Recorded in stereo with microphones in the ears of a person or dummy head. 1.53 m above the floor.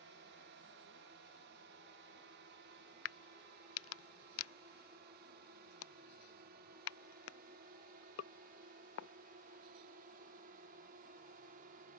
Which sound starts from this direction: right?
A drone, at 0.0 s.